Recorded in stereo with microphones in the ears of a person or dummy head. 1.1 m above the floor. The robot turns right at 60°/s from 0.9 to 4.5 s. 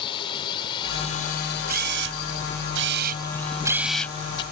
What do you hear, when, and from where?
0.0 s a drone: 25° left (ahead or behind); by 4.5 s 50° right (ahead or behind)
1.7 s a camera shutter: 45° right (ahead or behind); by 4.4 s 30° left (ahead or behind)